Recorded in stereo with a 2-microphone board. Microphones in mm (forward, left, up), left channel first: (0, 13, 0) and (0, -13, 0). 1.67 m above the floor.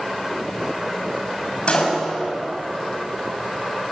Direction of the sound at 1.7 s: 50° left (ahead or behind).